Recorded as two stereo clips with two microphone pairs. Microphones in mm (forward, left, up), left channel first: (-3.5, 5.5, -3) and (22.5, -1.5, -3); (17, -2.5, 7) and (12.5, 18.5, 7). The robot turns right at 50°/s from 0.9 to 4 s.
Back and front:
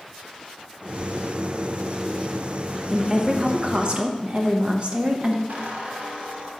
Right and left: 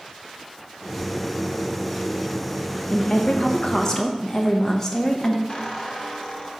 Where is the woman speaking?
80° right, 0.9 m; by 5.4 s 25° right, 0.9 m.